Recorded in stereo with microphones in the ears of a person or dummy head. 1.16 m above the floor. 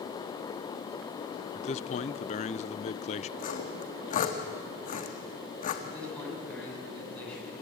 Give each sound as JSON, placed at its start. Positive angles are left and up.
{"t": 1.6, "sound": "a man speaking", "side_deg": 40, "distance_m": 0.7}
{"t": 3.4, "sound": "sawing", "side_deg": 40, "distance_m": 1.5}
{"t": 5.8, "sound": "a man speaking", "side_deg": 5, "distance_m": 8.5}